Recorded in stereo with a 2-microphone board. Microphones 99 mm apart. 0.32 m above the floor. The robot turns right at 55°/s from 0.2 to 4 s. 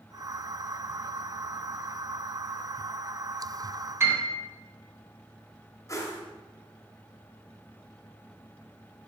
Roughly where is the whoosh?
Left.